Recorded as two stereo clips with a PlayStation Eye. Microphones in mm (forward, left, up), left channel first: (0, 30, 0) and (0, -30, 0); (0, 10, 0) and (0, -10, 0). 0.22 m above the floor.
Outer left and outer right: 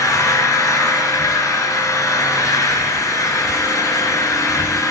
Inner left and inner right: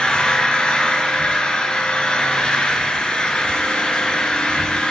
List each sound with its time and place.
0.0 s an engine running: 65° left (ahead or behind), 1.7 m